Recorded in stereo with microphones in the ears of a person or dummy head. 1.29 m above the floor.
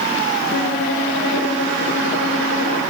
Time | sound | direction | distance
0.5 | a violin | 40° left (ahead or behind) | 1.5 m